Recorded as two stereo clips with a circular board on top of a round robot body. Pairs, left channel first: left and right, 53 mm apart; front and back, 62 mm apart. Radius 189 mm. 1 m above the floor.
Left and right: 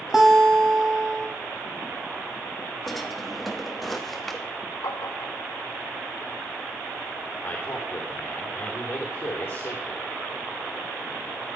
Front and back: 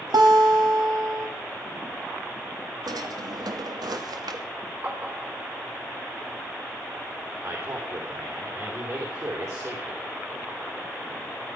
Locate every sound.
0.1 s a guitar: 175° right, 1.8 m
2.9 s a drawer: straight behind, 1.1 m
4.8 s tapping: 120° left, 1.5 m
7.4 s a man speaking: 145° left, 4 m